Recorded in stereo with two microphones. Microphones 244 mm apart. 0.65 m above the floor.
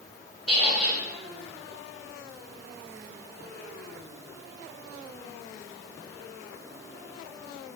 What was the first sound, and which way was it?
A squeak, 65° left (ahead or behind).